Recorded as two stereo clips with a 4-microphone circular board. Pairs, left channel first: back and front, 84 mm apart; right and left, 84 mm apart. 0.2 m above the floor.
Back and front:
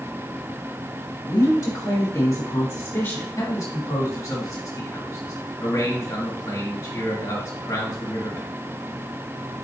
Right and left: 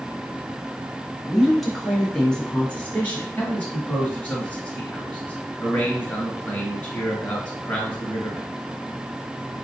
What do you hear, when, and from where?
1.3 s a woman speaking: 175° left, 1.9 m; by 3.3 s 140° right, 1.6 m
3.4 s a man speaking: 160° right, 2.0 m